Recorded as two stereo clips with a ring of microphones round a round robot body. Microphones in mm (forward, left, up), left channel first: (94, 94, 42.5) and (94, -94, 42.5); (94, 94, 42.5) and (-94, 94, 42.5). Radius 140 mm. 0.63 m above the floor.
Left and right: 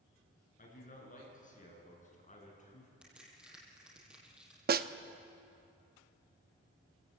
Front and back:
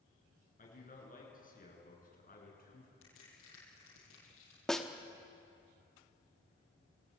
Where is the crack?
5° right, 8 m.